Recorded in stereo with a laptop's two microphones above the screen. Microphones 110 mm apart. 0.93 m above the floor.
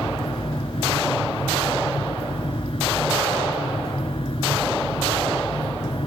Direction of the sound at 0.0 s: 55° left (ahead or behind).